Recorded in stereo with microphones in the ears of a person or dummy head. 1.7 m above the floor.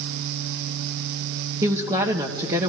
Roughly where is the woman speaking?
Right.